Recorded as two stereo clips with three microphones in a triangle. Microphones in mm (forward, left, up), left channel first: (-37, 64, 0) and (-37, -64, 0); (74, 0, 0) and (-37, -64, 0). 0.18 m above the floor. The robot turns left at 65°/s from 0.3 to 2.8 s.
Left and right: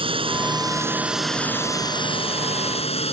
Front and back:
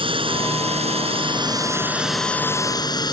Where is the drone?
120° right; by 3.1 s 80° left.